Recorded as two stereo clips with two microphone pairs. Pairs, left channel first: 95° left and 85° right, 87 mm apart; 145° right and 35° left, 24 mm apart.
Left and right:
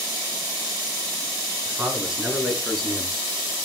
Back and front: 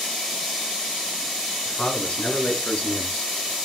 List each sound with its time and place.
1.6 s a man speaking: 160° right, 5.5 m; by 3.6 s straight behind, 6.5 m